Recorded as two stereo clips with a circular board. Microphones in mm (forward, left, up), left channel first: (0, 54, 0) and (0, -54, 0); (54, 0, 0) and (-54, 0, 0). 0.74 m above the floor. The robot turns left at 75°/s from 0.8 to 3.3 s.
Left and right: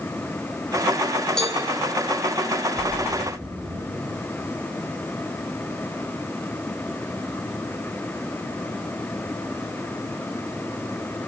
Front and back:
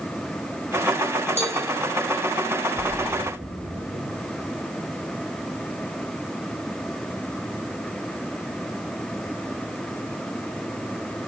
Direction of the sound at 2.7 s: 105° right.